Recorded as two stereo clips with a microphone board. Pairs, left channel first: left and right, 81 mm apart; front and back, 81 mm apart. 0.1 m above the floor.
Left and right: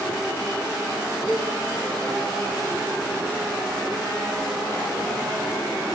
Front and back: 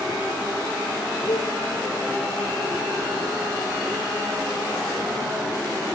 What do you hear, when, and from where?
1.3 s a cowbell: 5° right, 2.5 m